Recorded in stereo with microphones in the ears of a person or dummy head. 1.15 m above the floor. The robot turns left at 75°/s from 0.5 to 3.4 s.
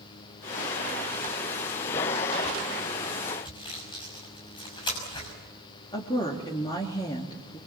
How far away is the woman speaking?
About 2.5 m.